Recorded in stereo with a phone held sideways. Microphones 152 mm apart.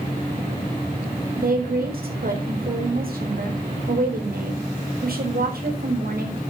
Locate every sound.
1.4 s a woman speaking: 80° right, 4 m